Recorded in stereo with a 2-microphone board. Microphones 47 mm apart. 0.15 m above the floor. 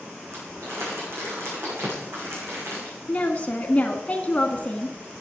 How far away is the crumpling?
About 8.5 m.